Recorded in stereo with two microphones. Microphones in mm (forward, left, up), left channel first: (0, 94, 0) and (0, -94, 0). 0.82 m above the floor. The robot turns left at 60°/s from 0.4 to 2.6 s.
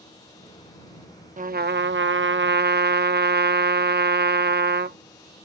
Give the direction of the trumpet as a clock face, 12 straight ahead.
1 o'clock.